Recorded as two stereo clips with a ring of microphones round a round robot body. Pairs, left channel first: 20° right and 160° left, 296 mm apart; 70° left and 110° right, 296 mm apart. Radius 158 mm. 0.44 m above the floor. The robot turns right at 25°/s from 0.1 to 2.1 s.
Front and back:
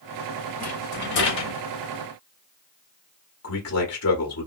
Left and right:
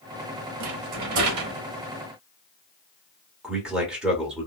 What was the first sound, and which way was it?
A rattle, 90° right.